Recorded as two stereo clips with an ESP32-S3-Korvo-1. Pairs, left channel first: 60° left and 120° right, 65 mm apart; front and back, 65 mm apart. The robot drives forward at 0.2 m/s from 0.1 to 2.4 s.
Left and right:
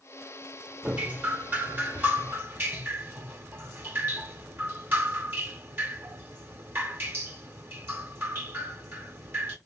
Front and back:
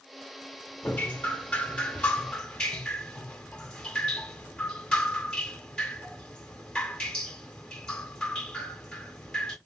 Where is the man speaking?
I don't hear a man speaking.